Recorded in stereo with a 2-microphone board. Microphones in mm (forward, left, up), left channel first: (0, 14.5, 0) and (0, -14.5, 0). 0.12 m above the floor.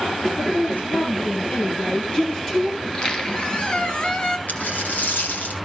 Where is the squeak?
30° left (ahead or behind), 1.6 m.